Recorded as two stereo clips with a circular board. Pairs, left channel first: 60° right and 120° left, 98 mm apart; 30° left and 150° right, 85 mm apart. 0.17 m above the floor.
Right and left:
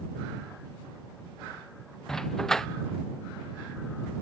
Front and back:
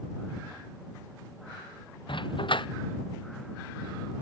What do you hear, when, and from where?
2.1 s a dog barking: 25° left